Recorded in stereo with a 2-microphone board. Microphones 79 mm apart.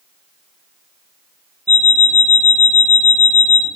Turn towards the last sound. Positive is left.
turn(degrees=20)  # may be behind; listen again after turning